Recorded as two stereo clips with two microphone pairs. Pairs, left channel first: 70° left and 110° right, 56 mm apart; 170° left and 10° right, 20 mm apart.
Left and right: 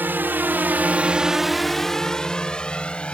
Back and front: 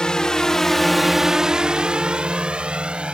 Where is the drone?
160° right; by 3.1 s 5° right.